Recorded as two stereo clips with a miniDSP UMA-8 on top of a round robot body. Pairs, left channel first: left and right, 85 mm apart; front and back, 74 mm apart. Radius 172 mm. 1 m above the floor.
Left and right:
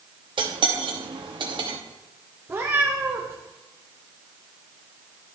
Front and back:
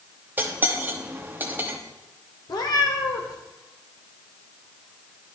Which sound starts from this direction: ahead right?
A cat meowing, at 2.5 s.